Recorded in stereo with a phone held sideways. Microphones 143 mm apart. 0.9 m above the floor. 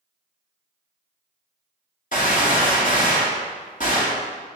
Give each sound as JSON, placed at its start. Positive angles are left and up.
{"t": 2.1, "sound": "a gunshot", "side_deg": 60, "distance_m": 1.8}